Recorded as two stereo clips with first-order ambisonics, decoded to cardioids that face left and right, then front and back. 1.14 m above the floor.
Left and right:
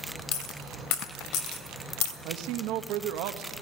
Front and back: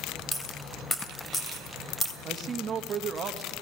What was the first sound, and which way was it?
A dropped coin, 75° left.